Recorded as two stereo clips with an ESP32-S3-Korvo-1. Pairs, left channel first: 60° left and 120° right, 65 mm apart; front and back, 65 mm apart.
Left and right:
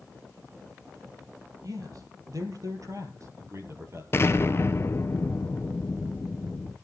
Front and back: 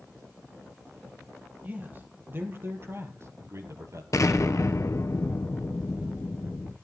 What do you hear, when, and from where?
1.6 s a man speaking: 120° right, 3 m; by 4.0 s 155° right, 2.5 m
4.1 s an explosion: 15° left, 1.2 m